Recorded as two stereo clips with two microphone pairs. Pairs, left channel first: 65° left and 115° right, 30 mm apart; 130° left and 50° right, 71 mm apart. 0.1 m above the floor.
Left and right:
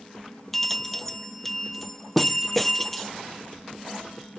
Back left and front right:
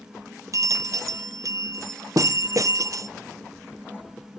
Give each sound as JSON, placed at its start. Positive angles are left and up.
{"t": 0.5, "sound": "a bell", "azimuth_deg": -20, "distance_m": 0.5}